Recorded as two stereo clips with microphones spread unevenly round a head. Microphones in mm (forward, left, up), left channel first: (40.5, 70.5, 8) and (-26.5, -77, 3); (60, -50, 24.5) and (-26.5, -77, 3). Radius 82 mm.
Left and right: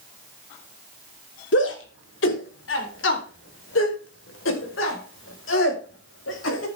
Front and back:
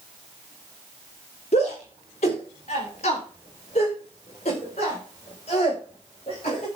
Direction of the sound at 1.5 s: 55° left.